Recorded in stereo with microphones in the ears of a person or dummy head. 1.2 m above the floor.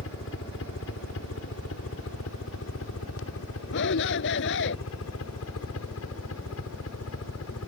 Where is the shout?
65° left (ahead or behind).